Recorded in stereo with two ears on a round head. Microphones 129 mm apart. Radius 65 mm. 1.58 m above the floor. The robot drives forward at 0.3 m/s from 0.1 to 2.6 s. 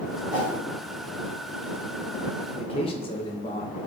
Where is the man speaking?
40° left (ahead or behind), 0.6 m.